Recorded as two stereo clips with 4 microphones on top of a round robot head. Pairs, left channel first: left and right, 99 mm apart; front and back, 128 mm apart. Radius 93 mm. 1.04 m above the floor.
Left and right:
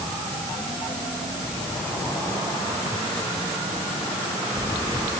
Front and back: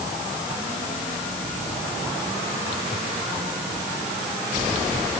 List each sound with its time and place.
Only background noise.